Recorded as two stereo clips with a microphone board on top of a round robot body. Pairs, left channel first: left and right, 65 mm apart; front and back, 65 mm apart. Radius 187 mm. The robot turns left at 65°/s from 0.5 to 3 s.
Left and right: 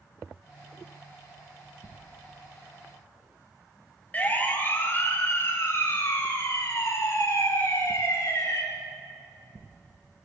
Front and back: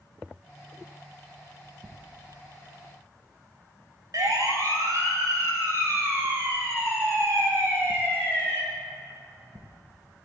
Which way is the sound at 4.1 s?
160° left.